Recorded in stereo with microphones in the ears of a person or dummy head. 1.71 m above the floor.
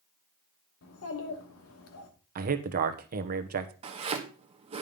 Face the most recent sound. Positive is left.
turn(degrees=-30)  # may be behind; listen again after turning